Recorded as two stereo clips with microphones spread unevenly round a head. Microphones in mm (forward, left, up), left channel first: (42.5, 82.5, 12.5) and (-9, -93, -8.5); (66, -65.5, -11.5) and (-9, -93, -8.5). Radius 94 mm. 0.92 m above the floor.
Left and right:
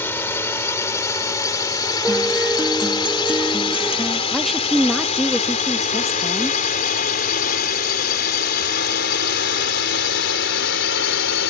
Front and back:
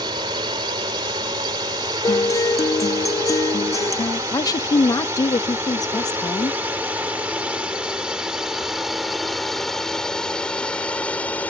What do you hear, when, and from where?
0.0 s a drone: 155° left; by 11.5 s 100° left
2.0 s a guitar: 25° right
4.3 s a woman speaking: 20° right